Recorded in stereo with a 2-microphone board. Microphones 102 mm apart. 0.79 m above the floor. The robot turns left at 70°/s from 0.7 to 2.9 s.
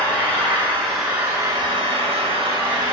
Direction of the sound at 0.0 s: 15° left.